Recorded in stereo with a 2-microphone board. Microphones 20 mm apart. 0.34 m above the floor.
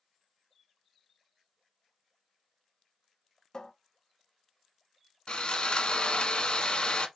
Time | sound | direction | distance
3.5 | a cupboard door | 40° left (ahead or behind) | 0.6 m
5.3 | sawing | 55° left (ahead or behind) | 0.8 m